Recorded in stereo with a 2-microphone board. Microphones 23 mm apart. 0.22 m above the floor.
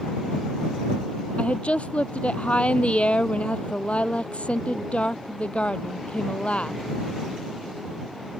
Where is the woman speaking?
65° left (ahead or behind).